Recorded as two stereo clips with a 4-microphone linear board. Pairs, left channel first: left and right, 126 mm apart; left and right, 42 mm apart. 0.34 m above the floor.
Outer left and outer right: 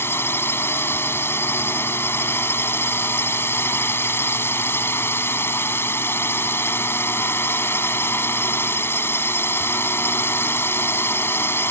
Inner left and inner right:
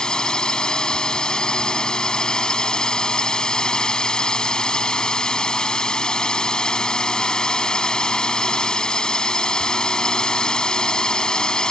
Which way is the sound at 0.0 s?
20° left (ahead or behind).